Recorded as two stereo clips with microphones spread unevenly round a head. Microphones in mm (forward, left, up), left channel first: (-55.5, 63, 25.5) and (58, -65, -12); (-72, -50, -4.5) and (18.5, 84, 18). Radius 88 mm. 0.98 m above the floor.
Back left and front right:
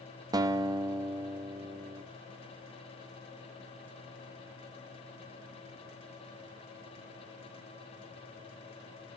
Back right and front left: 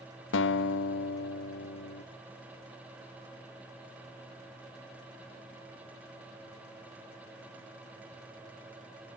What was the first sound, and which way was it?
A guitar, 115° right.